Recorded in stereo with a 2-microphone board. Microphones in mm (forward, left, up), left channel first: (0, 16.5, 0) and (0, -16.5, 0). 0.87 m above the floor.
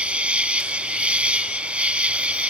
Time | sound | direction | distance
0.0 | an insect | 40° right (ahead or behind) | ?